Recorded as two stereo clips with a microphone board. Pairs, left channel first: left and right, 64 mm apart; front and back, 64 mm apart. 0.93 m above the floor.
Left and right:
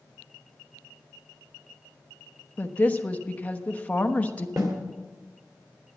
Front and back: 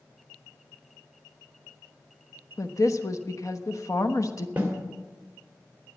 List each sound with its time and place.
2.6 s a woman speaking: 25° left, 1.0 m
4.6 s a snare drum: 115° right, 2.5 m